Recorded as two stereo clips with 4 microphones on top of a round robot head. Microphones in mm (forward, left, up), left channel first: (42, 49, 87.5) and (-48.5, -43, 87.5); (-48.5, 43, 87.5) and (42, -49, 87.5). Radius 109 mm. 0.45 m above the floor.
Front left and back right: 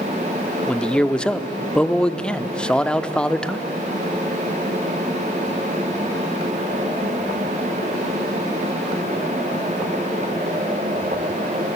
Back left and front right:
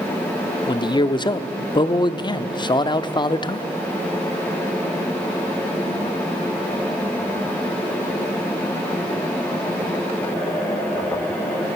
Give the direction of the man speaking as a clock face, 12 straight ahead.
8 o'clock.